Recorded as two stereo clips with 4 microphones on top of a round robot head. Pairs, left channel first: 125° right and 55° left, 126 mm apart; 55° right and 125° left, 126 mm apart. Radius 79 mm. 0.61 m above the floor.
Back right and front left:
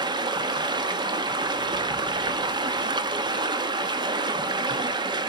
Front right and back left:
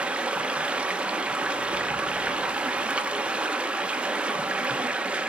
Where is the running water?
50° left, 0.9 m.